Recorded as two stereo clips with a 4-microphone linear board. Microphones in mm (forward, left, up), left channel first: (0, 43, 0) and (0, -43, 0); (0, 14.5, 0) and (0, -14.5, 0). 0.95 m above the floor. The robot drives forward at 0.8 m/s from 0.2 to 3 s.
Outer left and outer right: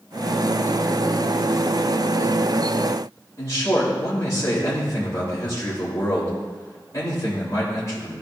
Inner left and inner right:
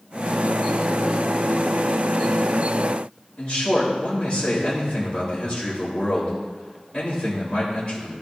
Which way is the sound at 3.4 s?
40° left (ahead or behind).